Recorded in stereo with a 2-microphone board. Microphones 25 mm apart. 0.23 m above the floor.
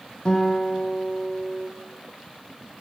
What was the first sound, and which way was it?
A guitar, 40° left (ahead or behind).